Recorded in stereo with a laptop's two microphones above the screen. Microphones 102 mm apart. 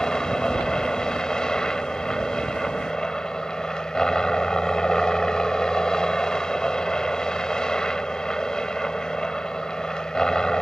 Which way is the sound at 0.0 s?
5° left (ahead or behind).